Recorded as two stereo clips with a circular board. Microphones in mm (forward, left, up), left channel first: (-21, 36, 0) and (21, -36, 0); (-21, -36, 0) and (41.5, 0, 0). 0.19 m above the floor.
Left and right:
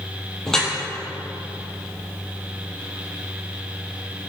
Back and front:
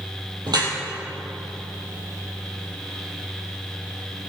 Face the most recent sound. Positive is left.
turn(degrees=35)